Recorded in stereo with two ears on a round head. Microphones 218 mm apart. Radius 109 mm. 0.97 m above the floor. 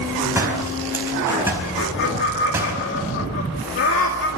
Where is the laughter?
55° left (ahead or behind), 2 m.